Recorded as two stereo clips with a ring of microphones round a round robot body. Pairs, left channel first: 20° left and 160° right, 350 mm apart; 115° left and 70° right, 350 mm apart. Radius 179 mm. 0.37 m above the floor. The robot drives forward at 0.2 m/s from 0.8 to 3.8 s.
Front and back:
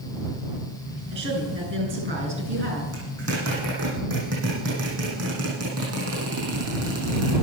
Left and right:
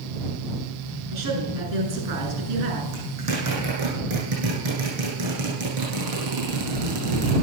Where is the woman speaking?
100° right, 6.5 m.